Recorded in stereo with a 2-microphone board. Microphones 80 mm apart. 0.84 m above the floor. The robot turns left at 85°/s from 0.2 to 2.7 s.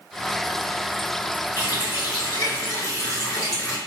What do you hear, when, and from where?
1.6 s a running tap: 135° left, 1.1 m; by 3.8 s 35° left, 1.1 m